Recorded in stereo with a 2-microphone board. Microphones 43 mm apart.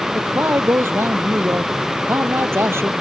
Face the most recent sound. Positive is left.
turn(degrees=-80)